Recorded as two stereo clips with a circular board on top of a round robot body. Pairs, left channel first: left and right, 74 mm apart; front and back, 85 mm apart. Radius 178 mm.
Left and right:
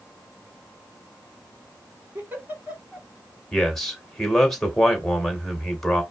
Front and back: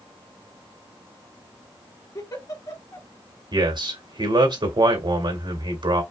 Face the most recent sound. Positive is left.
turn(degrees=180)